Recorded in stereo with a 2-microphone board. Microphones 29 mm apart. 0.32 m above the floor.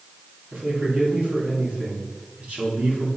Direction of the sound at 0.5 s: 50° right (ahead or behind).